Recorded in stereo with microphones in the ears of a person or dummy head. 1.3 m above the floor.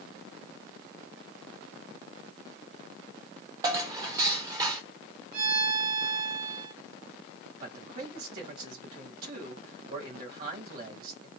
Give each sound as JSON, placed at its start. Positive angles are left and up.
{"t": 3.6, "sound": "dishes clattering", "side_deg": -20, "distance_m": 0.9}
{"t": 5.3, "sound": "a violin", "side_deg": -55, "distance_m": 3.0}
{"t": 7.6, "sound": "a man speaking", "side_deg": -50, "distance_m": 2.0}